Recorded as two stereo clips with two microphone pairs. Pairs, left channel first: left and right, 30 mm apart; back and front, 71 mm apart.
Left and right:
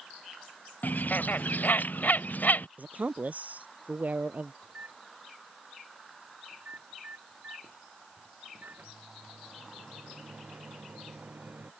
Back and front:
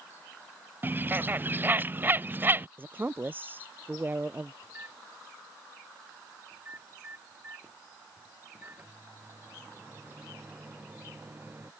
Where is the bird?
60° left.